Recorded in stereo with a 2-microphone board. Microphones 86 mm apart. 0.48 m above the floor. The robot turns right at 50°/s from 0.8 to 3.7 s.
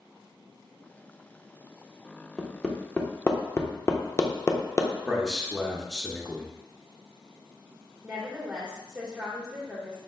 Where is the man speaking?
Centre (ahead or behind), 0.8 m.